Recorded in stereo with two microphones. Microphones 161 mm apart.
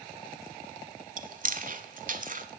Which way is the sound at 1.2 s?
60° right (ahead or behind).